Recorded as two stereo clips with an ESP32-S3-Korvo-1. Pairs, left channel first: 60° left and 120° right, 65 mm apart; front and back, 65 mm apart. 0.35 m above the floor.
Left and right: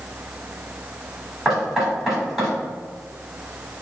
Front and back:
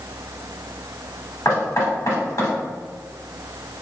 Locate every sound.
1.4 s knocking: 30° right, 1.6 m